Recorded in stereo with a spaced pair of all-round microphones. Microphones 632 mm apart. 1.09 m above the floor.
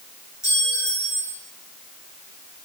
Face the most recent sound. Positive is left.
turn(degrees=5)  # may be behind; listen again after turning